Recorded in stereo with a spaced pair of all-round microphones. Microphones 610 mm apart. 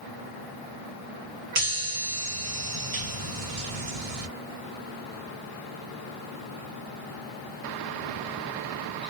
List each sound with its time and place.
1.6 s a chime: 70° right (ahead or behind), 0.8 m